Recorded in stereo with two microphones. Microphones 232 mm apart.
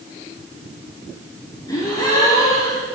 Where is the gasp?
15° left (ahead or behind), 3 m.